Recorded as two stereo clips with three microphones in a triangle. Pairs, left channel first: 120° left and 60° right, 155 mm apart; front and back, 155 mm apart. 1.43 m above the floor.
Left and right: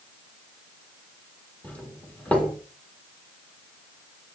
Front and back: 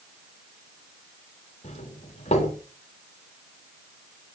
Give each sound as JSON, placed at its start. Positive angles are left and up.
{"t": 1.6, "sound": "a doorbell", "azimuth_deg": 40, "distance_m": 4.5}